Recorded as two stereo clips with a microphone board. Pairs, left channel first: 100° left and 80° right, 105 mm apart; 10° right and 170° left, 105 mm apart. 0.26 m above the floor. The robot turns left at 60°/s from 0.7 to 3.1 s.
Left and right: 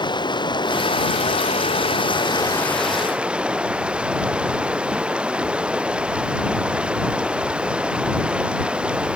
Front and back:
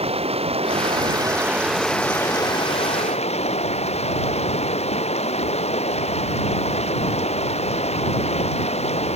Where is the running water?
145° left; by 9.2 s straight ahead.